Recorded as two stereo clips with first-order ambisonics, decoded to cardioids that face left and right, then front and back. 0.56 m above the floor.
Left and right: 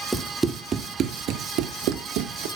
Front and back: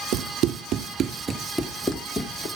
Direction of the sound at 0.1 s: 175° right.